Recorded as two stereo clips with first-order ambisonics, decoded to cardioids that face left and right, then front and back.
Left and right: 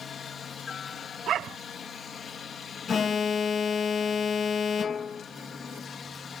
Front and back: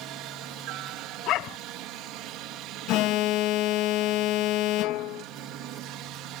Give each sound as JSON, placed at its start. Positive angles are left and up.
{"t": 0.0, "sound": "a helicopter", "azimuth_deg": 155}
{"t": 1.3, "sound": "a dog barking", "azimuth_deg": -40}
{"t": 2.9, "sound": "an alarm", "azimuth_deg": 25}